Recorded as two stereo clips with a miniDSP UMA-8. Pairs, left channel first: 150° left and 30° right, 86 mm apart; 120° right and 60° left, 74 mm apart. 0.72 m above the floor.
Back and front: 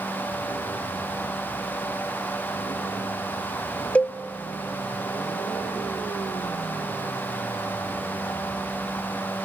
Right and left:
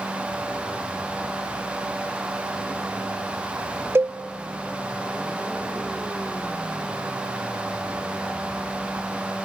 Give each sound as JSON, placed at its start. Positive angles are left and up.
{"t": 4.0, "sound": "a cowbell", "azimuth_deg": 85, "distance_m": 0.6}